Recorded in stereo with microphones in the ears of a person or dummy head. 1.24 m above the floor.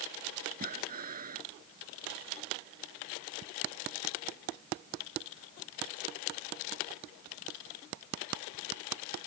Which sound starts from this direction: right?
Breathing, at 0.6 s.